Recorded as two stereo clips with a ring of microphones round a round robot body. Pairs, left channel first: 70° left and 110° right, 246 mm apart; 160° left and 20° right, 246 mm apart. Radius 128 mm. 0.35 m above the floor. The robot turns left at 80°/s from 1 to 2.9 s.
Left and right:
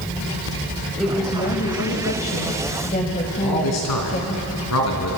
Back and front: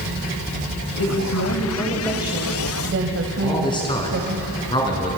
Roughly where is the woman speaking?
Behind.